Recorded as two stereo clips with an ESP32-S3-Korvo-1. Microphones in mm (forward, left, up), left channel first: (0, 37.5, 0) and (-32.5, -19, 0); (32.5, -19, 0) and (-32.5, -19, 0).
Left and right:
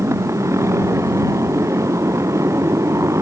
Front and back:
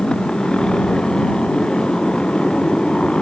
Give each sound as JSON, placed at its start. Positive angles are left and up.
{"t": 0.0, "sound": "a motorcycle", "azimuth_deg": -80}